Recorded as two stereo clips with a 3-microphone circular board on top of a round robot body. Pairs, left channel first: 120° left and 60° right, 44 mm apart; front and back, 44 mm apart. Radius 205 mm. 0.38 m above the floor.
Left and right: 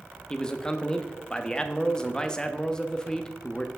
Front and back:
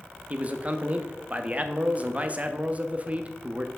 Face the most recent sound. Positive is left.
turn(degrees=175)